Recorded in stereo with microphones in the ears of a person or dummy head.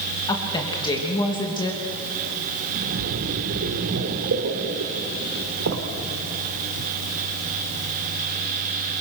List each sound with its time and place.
0.3 s a woman speaking: 25° left (ahead or behind), 3 m
2.7 s a splash: 65° right (ahead or behind), 2.5 m